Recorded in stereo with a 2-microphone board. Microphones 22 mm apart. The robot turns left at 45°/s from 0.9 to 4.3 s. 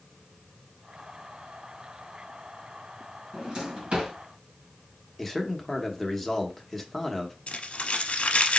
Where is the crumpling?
70° left (ahead or behind), 0.9 m.